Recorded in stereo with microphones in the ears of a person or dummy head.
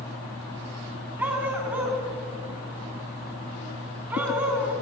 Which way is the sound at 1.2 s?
10° right (ahead or behind).